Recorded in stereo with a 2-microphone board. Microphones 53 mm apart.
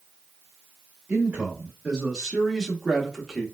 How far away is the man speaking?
About 1.2 m.